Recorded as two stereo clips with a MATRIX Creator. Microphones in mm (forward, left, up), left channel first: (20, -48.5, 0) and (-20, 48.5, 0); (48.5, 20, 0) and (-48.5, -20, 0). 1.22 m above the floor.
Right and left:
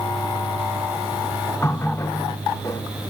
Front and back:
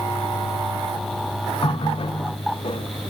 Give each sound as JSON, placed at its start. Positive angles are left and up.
{"t": 1.6, "sound": "a running tap", "azimuth_deg": -5, "distance_m": 2.0}